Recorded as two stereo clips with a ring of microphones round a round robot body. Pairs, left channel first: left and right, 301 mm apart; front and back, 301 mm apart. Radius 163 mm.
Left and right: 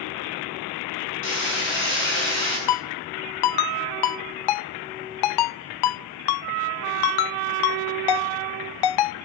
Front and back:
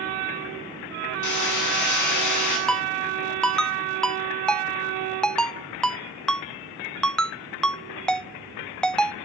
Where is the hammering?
30° left, 9 m.